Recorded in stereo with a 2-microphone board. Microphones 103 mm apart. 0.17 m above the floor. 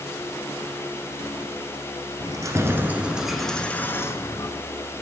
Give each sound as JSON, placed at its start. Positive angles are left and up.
{"t": 2.2, "sound": "keys jangling", "side_deg": -35, "distance_m": 1.6}